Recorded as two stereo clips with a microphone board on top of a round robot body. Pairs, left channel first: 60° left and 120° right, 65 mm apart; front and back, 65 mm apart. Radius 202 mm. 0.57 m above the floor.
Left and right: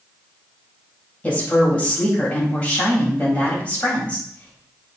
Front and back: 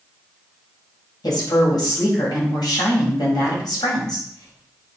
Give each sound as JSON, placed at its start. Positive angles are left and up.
{"t": 1.2, "sound": "a woman speaking", "azimuth_deg": -10, "distance_m": 4.0}